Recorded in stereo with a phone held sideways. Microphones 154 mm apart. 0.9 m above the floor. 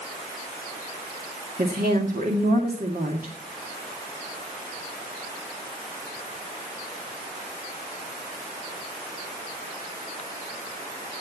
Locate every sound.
1.6 s a woman speaking: 65° right (ahead or behind), 2 m